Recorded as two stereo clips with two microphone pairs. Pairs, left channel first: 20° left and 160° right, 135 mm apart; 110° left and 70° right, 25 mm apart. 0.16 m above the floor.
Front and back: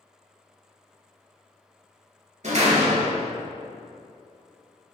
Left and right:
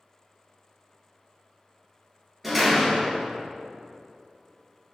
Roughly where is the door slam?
Behind right.